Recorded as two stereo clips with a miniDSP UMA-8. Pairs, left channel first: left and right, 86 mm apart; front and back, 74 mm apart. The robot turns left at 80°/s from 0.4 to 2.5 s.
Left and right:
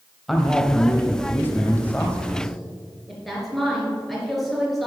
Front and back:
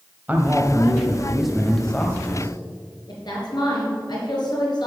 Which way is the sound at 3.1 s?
Straight ahead.